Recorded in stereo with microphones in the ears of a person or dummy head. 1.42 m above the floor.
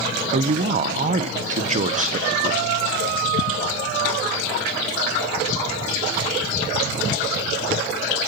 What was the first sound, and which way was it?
A woman speaking, 45° right (ahead or behind).